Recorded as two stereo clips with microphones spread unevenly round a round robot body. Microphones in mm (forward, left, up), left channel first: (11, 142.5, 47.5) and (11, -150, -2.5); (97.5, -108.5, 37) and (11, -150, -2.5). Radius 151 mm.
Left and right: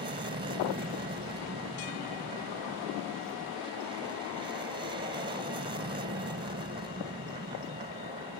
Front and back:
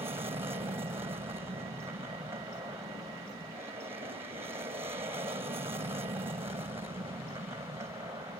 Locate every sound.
0.0 s an aircraft: 145° right